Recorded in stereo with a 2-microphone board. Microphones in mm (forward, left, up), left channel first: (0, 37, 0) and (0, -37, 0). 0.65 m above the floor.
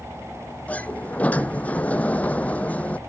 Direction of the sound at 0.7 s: 20° left (ahead or behind).